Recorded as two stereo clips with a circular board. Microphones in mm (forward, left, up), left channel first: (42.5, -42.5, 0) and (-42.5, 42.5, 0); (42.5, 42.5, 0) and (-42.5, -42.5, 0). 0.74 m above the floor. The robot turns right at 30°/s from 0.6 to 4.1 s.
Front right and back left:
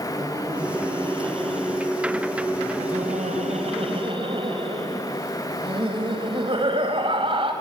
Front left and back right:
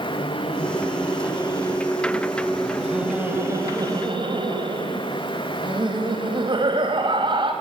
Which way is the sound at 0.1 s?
75° left.